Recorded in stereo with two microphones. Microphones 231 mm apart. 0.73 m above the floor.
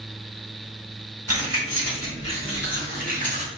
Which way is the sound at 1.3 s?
80° right.